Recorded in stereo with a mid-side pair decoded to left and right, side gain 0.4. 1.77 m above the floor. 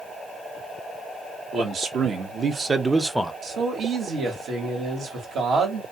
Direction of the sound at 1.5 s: 65° right.